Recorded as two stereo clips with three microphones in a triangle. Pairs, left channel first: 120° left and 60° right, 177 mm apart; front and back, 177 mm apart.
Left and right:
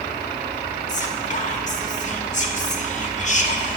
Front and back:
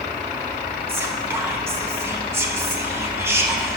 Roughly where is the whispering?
Left.